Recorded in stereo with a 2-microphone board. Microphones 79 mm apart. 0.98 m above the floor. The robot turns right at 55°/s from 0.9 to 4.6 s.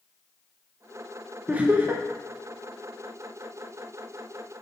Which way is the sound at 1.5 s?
150° right.